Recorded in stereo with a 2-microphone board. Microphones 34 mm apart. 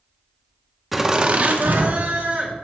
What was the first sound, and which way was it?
Laughter, centre (ahead or behind).